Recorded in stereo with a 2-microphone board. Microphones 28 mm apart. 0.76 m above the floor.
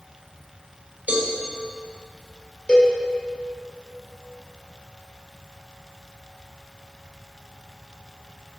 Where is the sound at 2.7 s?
35° left (ahead or behind), 3 m.